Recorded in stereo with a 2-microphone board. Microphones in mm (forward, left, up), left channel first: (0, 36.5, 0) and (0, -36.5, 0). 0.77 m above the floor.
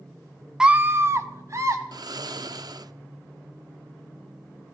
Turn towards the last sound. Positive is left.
turn(degrees=-60)  # may be behind; listen again after turning